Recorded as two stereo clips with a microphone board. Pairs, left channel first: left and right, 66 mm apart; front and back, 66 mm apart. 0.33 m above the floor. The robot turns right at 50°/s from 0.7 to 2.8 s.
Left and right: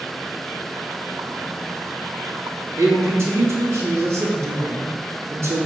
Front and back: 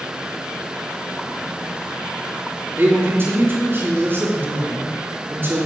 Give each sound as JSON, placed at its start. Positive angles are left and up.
{"t": 2.8, "sound": "a man speaking", "azimuth_deg": -130, "distance_m": 3.0}